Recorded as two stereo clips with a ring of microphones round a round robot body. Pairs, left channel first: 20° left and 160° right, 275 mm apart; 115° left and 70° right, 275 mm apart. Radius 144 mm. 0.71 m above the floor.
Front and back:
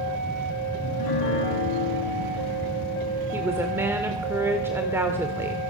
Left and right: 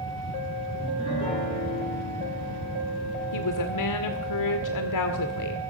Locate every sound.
0.8 s a piano: 40° left, 8.5 m
3.3 s a woman speaking: 120° left, 2 m